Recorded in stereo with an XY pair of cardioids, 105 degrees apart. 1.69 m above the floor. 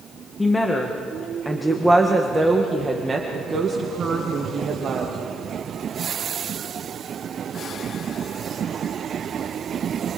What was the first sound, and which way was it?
A woman speaking, 15° left.